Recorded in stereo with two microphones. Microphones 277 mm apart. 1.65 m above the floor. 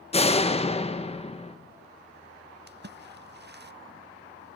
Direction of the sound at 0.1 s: 25° left (ahead or behind).